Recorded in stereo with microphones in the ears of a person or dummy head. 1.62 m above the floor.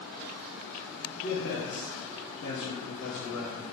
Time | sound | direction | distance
1.1 | a man speaking | 45° left (ahead or behind) | 0.9 m